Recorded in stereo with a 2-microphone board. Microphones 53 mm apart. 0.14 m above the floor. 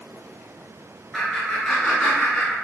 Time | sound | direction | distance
1.1 | laughter | centre (ahead or behind) | 1.6 m